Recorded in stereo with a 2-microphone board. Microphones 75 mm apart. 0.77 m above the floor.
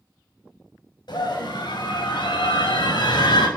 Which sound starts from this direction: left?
A scream, at 1.1 s.